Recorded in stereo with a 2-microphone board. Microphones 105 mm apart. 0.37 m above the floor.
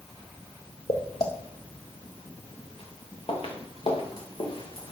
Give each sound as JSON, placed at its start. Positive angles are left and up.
{"t": 0.9, "sound": "footsteps", "side_deg": 75, "distance_m": 2.0}